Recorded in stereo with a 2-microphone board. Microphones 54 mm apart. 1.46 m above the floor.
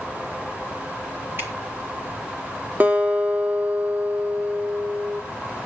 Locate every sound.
1.4 s dripping: 45° right (ahead or behind), 2.5 m
2.8 s a guitar: 35° right (ahead or behind), 3.5 m